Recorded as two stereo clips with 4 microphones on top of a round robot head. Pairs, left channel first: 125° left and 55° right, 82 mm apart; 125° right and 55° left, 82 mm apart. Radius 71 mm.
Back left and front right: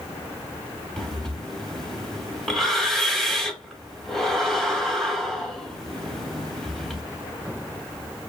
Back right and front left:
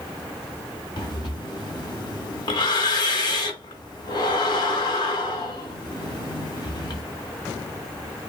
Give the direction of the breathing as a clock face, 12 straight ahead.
5 o'clock.